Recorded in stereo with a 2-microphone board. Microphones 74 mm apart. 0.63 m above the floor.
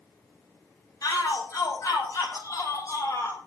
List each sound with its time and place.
1.0 s a shout: 50° left (ahead or behind), 5.5 m; by 3.4 s 40° left (ahead or behind), 4.5 m